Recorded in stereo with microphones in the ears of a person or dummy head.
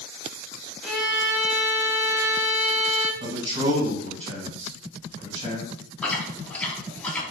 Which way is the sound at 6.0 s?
10° left (ahead or behind).